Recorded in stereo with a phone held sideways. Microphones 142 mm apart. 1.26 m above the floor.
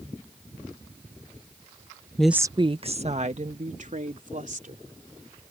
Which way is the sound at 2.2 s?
10° left (ahead or behind).